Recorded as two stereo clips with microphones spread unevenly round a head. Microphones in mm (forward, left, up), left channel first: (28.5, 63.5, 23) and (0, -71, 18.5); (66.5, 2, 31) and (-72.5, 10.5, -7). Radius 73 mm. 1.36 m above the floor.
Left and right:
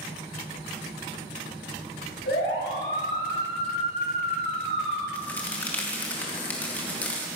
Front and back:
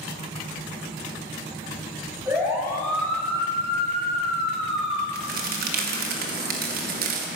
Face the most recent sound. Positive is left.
turn(degrees=155)